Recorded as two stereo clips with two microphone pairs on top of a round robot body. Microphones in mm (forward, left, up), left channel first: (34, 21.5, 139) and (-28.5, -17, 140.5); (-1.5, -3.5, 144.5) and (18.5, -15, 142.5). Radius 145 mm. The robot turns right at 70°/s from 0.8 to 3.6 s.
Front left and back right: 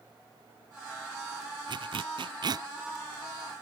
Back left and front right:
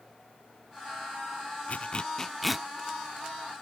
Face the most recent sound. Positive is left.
turn(degrees=-40)